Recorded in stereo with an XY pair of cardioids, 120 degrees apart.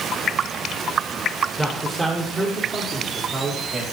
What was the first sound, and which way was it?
A man speaking, 15° right.